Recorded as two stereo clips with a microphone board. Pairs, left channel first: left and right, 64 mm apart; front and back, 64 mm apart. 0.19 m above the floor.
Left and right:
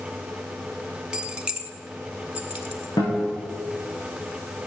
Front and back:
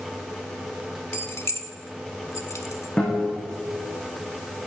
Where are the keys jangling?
25° right, 1.0 m; by 2.9 s 20° right, 1.9 m.